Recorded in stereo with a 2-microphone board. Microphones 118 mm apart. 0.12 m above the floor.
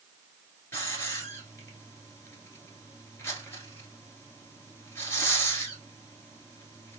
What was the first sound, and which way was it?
A hiss, 25° left (ahead or behind).